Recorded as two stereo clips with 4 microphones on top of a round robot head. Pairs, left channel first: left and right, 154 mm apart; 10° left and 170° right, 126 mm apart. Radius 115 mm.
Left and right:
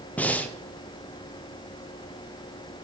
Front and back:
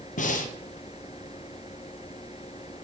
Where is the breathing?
10° left, 0.6 m.